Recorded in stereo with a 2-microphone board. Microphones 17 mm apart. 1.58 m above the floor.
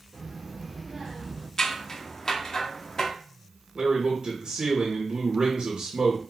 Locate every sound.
0.1 s a child speaking: 30° right (ahead or behind), 1.1 m; by 1.5 s 5° right (ahead or behind), 0.9 m
1.6 s scissors: 35° left (ahead or behind), 0.5 m
3.8 s a man speaking: 55° right (ahead or behind), 0.9 m